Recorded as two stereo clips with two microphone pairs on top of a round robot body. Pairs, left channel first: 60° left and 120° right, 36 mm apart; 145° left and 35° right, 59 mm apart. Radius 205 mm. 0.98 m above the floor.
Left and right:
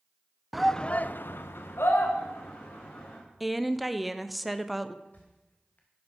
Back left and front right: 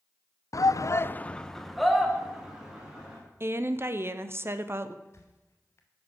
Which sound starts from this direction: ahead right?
A woman speaking, at 3.4 s.